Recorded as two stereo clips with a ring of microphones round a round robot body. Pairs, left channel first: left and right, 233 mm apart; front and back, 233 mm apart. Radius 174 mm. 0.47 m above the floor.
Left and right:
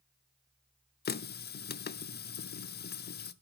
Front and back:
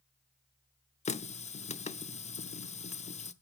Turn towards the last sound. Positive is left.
turn(degrees=55)